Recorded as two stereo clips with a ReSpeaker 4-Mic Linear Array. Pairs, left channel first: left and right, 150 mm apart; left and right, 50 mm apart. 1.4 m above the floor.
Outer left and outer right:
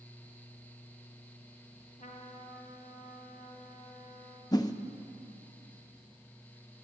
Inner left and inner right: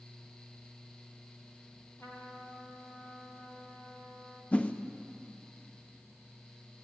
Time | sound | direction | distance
2.0 | a trumpet | 65° left (ahead or behind) | 2.5 m
4.5 | a whoosh | 25° left (ahead or behind) | 0.6 m